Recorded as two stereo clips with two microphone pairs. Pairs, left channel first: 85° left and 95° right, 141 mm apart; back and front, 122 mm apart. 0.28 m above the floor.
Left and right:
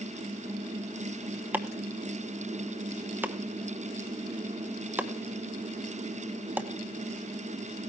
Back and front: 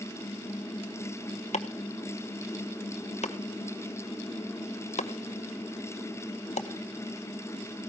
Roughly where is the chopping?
Behind.